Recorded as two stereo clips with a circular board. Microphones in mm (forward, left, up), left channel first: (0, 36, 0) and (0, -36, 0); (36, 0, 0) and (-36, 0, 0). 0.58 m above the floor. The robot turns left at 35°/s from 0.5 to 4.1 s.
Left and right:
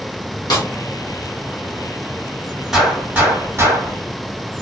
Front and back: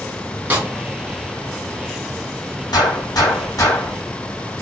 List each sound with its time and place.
0.5 s a snare drum: 115° left, 1.9 m; by 0.7 s 105° left, 1.9 m
2.7 s a gunshot: 5° right, 3.5 m; by 4.0 s 50° right, 3.5 m